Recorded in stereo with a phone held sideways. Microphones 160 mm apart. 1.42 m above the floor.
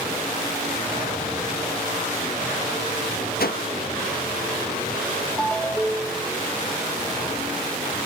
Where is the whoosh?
75° left (ahead or behind), 1.4 m.